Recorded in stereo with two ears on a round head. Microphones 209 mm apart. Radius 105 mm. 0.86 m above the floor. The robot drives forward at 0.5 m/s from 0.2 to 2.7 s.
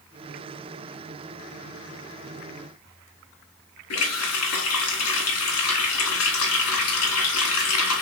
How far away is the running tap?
About 1.4 m.